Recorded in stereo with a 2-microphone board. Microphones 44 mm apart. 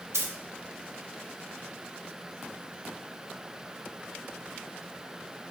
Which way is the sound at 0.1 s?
85° right.